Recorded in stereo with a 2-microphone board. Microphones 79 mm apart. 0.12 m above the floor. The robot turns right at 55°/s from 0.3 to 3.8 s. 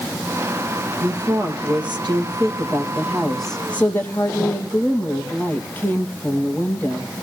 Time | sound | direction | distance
1.0 | a woman speaking | 135° right | 3 m